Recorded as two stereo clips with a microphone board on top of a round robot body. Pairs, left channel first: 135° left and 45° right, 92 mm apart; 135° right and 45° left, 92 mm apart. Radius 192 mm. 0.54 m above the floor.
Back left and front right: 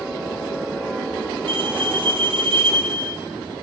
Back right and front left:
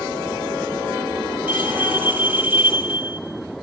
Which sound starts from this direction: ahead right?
A bell, at 1.5 s.